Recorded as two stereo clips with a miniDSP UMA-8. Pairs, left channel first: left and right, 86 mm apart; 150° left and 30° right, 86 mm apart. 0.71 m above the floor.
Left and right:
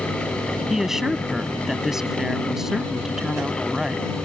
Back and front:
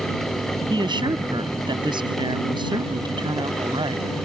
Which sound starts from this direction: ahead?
A woman speaking, at 0.7 s.